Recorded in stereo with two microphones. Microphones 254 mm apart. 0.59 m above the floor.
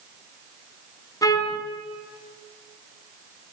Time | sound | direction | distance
1.2 | a trumpet | 15° left (ahead or behind) | 2 m